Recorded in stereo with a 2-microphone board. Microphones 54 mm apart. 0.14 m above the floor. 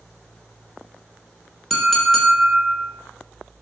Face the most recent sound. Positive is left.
turn(degrees=5)  # may be behind; listen again after turning